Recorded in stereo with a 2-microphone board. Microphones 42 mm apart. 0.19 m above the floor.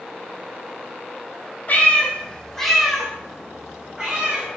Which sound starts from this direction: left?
A cat meowing, at 1.7 s.